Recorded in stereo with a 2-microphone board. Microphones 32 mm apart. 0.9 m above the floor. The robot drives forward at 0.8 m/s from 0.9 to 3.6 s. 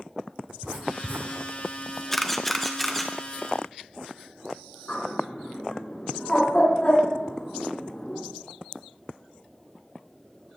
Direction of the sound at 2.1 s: 10° left (ahead or behind).